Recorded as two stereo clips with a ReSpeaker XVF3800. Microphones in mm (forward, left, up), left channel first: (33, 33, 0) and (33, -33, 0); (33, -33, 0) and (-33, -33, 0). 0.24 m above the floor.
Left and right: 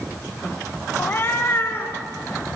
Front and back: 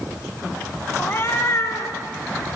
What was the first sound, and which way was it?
A cat meowing, 40° left.